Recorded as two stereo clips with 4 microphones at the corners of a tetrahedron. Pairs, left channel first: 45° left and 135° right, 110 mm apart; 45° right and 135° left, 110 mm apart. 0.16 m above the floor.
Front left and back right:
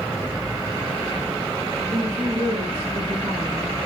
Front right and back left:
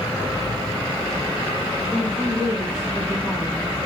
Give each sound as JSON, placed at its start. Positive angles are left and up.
{"t": 1.9, "sound": "a woman speaking", "azimuth_deg": -140, "distance_m": 5.0}